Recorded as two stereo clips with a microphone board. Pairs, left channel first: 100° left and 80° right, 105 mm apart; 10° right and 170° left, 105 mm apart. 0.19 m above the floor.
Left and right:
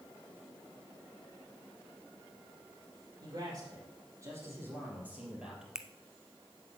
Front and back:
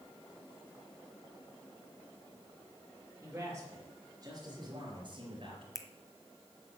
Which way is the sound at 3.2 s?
125° right.